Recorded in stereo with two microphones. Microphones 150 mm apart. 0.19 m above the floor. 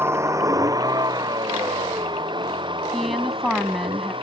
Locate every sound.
0.0 s a vehicle: 15° right (ahead or behind); by 4.2 s 35° right (ahead or behind)
2.9 s a woman speaking: centre (ahead or behind)